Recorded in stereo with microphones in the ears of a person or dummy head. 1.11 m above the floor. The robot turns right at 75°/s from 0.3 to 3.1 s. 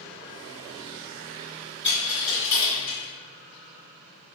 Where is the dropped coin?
10° right (ahead or behind), 1.8 m; by 3.0 s 60° left (ahead or behind), 1.8 m.